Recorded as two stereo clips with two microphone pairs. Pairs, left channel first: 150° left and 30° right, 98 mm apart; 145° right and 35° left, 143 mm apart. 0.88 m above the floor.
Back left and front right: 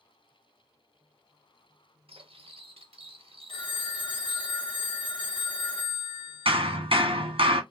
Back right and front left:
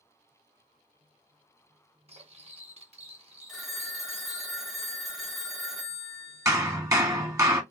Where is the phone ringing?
125° left, 1.3 m.